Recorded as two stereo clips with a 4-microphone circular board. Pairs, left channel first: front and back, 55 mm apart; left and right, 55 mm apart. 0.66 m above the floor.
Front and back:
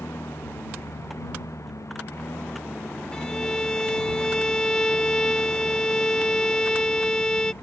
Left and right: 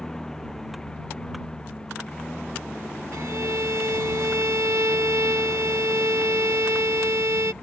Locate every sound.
0.0 s a lawn mower: 15° left
3.1 s a violin: 75° right